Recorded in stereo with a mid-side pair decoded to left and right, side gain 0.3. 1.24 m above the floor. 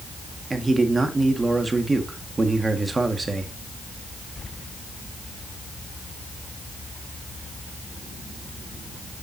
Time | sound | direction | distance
0.5 | a man speaking | 35° right | 1.8 m